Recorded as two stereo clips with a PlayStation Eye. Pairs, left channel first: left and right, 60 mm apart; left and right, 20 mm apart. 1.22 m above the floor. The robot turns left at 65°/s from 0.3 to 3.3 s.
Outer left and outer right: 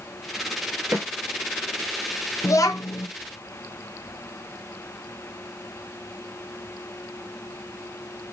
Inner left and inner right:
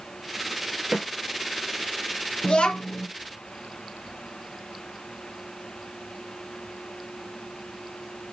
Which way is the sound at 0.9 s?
45° right (ahead or behind).